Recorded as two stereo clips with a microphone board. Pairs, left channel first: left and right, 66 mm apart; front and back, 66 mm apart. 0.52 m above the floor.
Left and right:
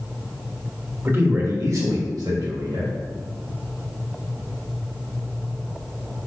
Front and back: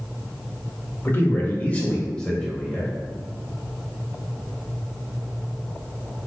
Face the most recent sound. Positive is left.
turn(degrees=-85)